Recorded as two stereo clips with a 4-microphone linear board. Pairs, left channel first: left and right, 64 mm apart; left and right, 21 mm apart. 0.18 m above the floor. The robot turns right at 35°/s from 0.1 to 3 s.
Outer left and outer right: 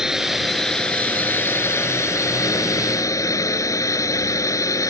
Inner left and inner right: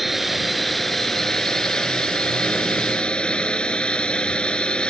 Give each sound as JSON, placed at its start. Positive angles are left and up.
{"t": 0.0, "sound": "a drone", "azimuth_deg": -10}